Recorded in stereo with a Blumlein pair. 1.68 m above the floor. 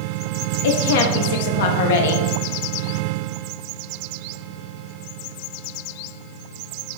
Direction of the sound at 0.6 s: 55° left.